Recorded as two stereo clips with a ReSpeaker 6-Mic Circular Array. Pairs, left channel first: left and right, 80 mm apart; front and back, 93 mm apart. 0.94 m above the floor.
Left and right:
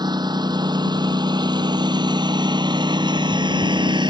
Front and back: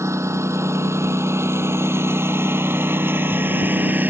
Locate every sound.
0.0 s a lawn mower: 120° right; by 4.1 s 110° right